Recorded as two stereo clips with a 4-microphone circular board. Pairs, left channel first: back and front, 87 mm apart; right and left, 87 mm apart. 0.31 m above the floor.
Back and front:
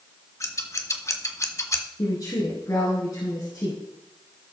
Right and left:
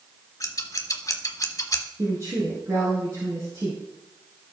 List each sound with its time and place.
0.4 s scissors: 135° right, 1.2 m
2.0 s a woman speaking: 140° left, 4 m